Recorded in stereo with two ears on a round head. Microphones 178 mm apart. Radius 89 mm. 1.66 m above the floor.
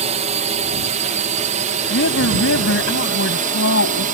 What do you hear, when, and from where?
0.0 s a drone: 35° right (ahead or behind); by 4.2 s 45° right (ahead or behind)
1.9 s a woman speaking: 70° left (ahead or behind)